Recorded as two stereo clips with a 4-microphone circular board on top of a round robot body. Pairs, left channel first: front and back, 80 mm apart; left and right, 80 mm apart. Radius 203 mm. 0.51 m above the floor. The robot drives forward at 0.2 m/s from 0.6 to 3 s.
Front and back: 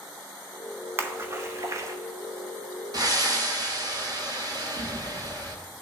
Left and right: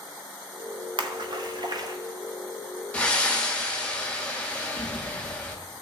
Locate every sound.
1.0 s a splash: 115° right, 0.7 m; by 2.0 s 130° right, 0.8 m
2.9 s breathing: 160° left, 1.6 m